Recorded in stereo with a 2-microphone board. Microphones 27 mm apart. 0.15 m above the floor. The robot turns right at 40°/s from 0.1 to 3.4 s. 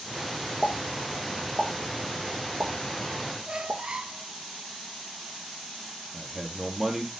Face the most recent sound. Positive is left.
turn(degrees=-15)  # may be behind; listen again after turning